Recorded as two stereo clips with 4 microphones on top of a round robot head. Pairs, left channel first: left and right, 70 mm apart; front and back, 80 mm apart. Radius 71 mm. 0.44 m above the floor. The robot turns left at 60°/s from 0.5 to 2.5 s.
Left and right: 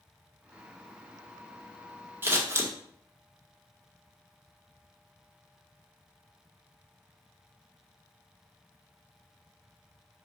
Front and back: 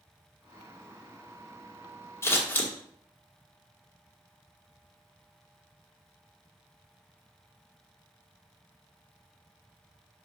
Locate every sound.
2.2 s scissors: 45° right, 1.4 m; by 2.7 s 60° right, 1.4 m